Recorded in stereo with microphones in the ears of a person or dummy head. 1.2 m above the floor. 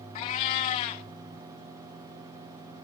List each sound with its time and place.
0.1 s a cat meowing: 30° left (ahead or behind), 0.8 m